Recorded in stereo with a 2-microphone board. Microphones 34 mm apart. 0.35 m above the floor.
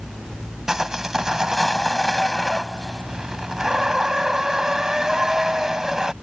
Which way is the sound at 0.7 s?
15° right (ahead or behind).